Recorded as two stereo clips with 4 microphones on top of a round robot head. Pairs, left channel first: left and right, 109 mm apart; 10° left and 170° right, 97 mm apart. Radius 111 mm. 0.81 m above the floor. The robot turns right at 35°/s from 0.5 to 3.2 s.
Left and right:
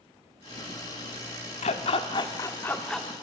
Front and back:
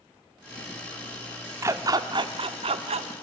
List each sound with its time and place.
1.6 s a dog barking: 130° left, 0.7 m; by 3.1 s straight behind, 0.7 m